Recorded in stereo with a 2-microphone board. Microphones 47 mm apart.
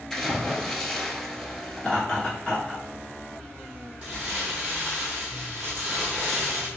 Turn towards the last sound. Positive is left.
turn(degrees=-30)  # may be behind; listen again after turning